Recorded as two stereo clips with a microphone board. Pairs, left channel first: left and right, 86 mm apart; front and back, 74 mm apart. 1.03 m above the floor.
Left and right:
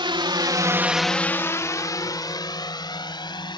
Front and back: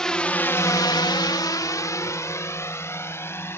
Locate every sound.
0.0 s a drone: 80° right; by 3.6 s 60° left